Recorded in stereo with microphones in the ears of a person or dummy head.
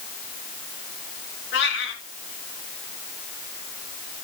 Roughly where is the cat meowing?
Left.